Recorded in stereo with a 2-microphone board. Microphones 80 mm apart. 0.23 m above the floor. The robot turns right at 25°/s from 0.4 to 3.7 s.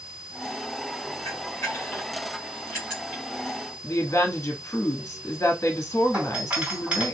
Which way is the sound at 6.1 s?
15° right (ahead or behind).